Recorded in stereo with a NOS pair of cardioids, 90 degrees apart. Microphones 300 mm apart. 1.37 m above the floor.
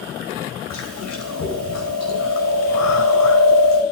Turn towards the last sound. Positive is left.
turn(degrees=60)